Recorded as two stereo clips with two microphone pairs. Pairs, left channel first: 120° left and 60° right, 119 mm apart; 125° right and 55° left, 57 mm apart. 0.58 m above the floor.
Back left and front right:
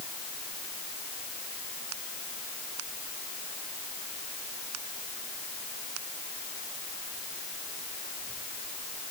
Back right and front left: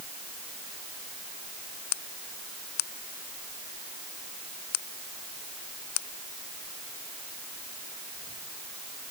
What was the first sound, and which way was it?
Only background noise.